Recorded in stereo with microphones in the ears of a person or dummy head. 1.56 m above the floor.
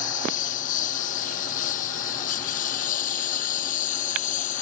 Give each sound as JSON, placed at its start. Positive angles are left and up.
{"t": 0.0, "sound": "a lawn mower", "side_deg": 45}